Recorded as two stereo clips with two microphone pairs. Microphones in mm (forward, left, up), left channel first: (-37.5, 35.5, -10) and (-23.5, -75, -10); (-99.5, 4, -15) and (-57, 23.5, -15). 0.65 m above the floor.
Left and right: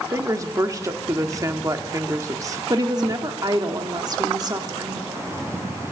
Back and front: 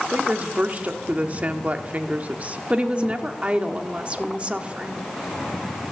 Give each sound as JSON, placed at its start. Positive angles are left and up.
{"t": 0.1, "sound": "a woman speaking", "azimuth_deg": -30, "distance_m": 1.0}
{"t": 2.7, "sound": "a woman speaking", "azimuth_deg": -40, "distance_m": 1.1}